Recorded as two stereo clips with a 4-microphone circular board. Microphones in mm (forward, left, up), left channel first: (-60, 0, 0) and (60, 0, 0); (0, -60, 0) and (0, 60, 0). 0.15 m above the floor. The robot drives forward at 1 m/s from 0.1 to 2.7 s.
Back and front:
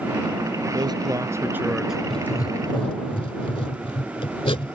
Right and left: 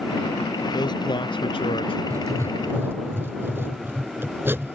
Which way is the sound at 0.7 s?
45° right.